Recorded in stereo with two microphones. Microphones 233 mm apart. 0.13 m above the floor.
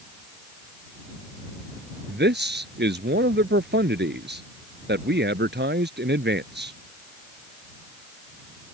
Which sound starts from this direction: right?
A man speaking, at 2.1 s.